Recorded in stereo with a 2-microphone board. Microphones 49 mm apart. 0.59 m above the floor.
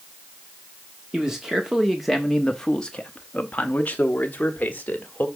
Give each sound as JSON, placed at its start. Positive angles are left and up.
{"t": 1.1, "sound": "a man speaking", "side_deg": -10, "distance_m": 1.1}